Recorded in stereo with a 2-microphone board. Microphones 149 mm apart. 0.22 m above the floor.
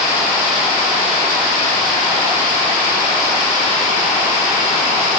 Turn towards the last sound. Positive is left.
No sound to turn to.